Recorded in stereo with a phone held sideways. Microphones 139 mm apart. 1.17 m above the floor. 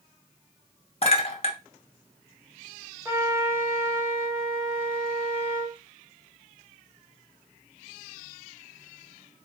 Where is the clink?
45° left (ahead or behind), 0.7 m.